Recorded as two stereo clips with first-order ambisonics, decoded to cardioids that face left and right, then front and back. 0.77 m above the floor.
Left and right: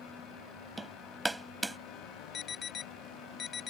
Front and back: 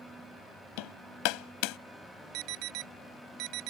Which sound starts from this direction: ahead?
Hammering, at 0.8 s.